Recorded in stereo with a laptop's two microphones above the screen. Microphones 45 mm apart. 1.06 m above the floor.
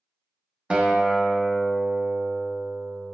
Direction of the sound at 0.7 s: 25° right (ahead or behind).